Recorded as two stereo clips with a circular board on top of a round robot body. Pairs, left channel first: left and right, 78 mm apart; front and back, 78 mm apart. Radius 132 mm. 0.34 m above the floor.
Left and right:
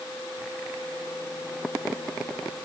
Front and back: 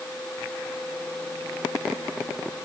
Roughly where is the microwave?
I don't hear a microwave.